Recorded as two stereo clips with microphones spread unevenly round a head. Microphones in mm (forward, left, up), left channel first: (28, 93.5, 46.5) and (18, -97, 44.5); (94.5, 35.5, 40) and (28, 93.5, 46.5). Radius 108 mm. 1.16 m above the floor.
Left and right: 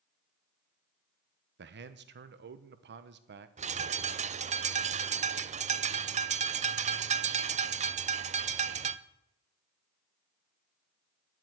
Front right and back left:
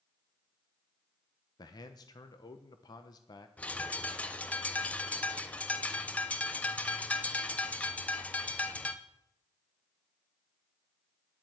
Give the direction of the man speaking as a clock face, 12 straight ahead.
3 o'clock.